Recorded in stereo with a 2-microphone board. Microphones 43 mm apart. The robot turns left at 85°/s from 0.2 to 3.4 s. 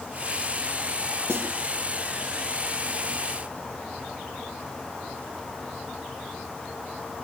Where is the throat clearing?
No throat clearing in this recording.